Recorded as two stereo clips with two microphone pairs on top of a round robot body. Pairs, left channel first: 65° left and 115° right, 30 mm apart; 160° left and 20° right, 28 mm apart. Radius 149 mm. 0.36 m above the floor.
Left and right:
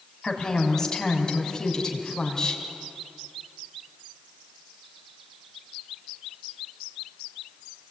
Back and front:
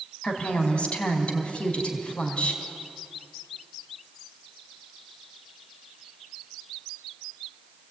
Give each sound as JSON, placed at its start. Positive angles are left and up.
{"t": 0.2, "sound": "a woman speaking", "azimuth_deg": 125, "distance_m": 4.0}